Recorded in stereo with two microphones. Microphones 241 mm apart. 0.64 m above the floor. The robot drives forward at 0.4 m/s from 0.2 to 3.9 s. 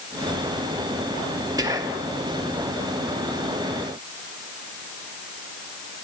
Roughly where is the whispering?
Centre.